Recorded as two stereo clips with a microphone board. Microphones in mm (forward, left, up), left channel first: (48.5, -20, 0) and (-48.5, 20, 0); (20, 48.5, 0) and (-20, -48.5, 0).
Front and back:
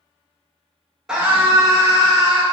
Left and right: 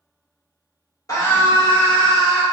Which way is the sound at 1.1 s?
75° left.